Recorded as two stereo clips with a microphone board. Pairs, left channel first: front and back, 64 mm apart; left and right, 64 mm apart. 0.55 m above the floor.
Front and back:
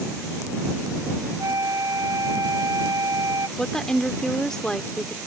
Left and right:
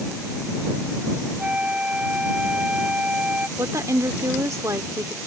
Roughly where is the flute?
Behind.